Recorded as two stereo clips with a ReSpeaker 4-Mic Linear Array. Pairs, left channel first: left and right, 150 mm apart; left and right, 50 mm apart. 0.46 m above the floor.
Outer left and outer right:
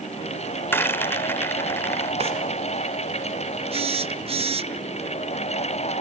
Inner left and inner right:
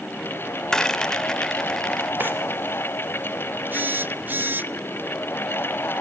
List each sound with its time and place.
0.7 s a rattle: 15° left (ahead or behind), 0.9 m
2.2 s a drawer: 45° right (ahead or behind), 4 m
3.7 s a phone buzzing: 40° right (ahead or behind), 0.7 m